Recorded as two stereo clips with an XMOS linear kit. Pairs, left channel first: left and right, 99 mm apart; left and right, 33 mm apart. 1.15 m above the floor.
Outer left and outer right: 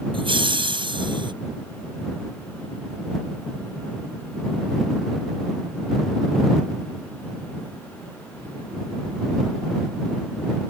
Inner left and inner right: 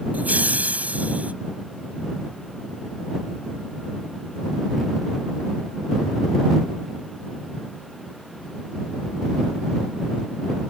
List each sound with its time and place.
0.1 s laughter: 55° right (ahead or behind); by 1.3 s 50° right (ahead or behind)